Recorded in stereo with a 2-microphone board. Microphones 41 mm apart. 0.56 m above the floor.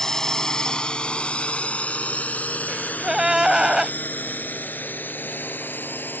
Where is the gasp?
15° right (ahead or behind).